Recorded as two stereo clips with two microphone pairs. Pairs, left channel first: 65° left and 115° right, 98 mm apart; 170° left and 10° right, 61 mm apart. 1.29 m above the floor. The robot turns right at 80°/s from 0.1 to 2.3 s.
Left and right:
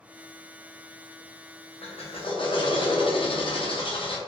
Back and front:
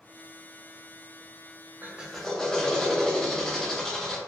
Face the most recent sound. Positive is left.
turn(degrees=95)